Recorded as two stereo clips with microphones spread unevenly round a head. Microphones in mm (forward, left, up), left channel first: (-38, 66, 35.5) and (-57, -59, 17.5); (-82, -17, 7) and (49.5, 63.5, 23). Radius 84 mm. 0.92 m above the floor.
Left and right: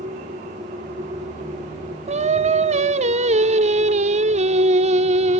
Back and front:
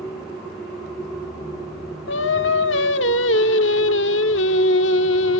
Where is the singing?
130° right, 1.2 m.